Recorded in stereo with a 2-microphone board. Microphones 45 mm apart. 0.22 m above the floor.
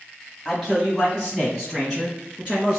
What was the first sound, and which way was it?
A man speaking, 5° right (ahead or behind).